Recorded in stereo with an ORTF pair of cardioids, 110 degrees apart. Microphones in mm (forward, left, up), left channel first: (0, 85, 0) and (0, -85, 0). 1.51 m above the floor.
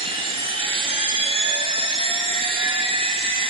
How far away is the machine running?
About 0.8 m.